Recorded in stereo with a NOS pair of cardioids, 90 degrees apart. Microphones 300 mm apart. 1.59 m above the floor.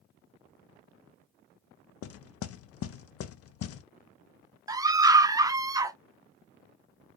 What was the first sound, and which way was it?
Knocking, 55° left.